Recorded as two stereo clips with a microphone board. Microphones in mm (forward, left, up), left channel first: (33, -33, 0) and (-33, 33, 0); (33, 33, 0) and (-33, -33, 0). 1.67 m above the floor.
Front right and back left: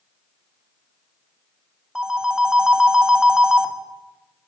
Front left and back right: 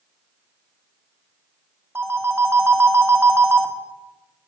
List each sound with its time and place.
1.9 s a phone ringing: 150° right, 0.6 m